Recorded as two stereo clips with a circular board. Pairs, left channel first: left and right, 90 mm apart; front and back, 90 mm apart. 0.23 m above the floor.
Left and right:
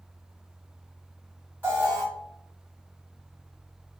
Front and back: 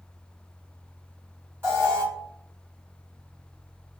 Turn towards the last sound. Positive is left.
turn(degrees=-145)